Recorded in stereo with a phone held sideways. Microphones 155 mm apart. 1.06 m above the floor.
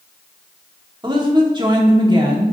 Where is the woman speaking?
30° right (ahead or behind), 2 m.